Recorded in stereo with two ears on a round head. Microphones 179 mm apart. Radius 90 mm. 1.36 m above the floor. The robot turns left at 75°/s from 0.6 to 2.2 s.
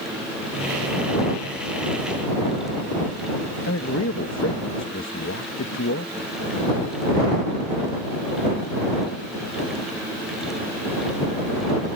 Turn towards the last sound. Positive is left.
turn(degrees=65)  # may be behind; listen again after turning